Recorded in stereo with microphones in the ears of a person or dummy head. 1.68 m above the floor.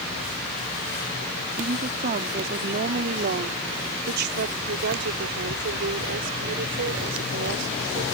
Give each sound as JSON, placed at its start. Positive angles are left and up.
{"t": 1.6, "sound": "a woman speaking", "side_deg": -40}